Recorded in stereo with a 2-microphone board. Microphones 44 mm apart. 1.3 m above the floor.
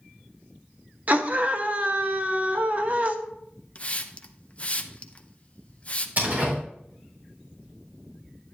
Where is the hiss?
30° left (ahead or behind), 0.6 m.